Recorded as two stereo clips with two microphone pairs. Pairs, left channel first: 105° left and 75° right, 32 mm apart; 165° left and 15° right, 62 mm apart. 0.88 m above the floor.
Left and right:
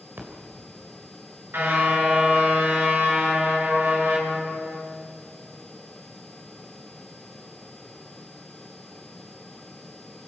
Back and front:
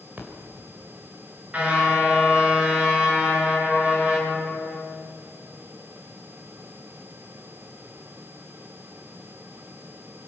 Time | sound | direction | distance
0.2 | a splash | 80° right | 4 m
1.5 | a car horn | 85° right | 6 m